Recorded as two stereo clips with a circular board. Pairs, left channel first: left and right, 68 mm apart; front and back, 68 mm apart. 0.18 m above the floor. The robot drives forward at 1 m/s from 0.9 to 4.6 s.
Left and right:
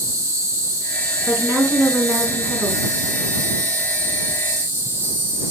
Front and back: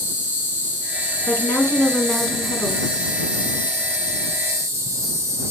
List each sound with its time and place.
0.0 s an insect: 55° right, 3 m; by 5.5 s 140° right, 3.5 m
1.3 s a woman speaking: 40° right, 2 m; by 2.9 s 105° right, 1.6 m